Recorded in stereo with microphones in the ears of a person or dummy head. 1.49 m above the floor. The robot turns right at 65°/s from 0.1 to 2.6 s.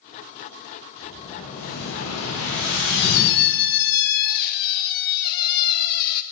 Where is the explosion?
10° left, 8.5 m; by 3.3 s 115° left, 8.5 m.